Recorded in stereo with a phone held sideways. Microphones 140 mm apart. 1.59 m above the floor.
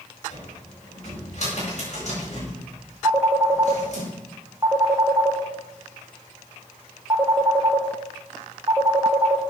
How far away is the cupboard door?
About 7.5 m.